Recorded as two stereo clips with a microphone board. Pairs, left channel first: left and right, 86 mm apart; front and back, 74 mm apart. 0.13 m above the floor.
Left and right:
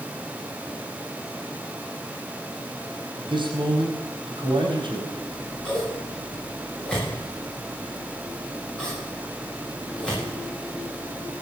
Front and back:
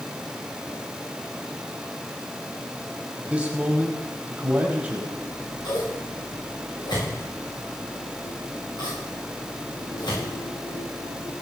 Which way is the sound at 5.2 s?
10° left.